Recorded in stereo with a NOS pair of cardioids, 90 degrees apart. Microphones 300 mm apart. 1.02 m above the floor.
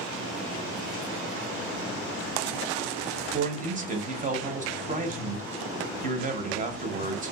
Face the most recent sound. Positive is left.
turn(degrees=-25)